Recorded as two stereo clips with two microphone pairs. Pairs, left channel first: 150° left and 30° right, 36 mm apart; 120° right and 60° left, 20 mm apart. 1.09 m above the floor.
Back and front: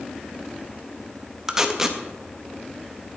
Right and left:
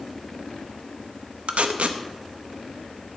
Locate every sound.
1.5 s tape being pulled: 50° left, 0.8 m